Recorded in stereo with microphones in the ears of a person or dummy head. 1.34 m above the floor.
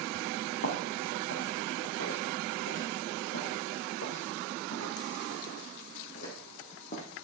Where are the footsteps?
65° left (ahead or behind), 4 m; by 7.0 s 40° left (ahead or behind), 3.5 m.